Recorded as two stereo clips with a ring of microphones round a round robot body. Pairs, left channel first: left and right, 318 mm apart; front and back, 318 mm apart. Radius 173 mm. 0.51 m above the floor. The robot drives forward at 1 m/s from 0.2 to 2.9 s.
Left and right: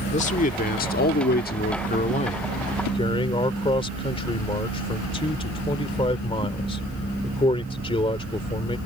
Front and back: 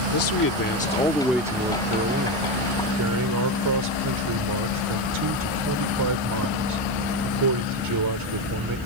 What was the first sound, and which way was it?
A man speaking, 25° left.